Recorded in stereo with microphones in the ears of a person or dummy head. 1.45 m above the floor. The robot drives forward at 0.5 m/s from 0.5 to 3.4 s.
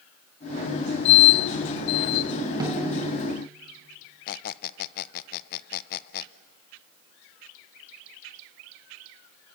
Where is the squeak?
50° left (ahead or behind), 0.6 m.